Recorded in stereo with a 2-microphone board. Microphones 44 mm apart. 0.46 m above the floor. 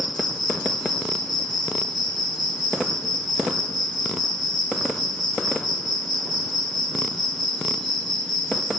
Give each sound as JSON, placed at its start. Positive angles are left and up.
{"t": 0.0, "sound": "an insect", "side_deg": 0, "distance_m": 7.5}